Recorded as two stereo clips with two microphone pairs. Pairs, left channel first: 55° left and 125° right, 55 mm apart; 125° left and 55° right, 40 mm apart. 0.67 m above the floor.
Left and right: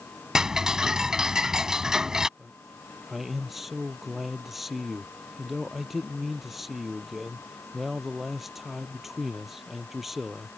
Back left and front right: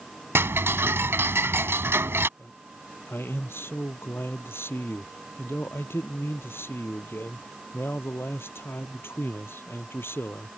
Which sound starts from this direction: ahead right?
Ticking, at 0.3 s.